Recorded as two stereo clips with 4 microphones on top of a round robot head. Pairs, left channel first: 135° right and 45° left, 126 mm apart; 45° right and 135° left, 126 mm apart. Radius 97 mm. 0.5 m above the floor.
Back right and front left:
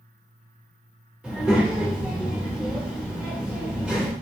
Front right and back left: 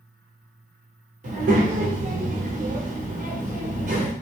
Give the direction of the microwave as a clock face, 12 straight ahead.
I don't hear a microwave.